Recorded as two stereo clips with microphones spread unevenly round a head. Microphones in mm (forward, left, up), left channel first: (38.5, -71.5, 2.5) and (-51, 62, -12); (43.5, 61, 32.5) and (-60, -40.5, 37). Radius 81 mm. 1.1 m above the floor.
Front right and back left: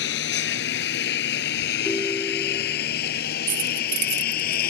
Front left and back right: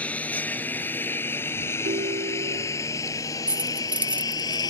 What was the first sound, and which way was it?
A lawn mower, 35° right.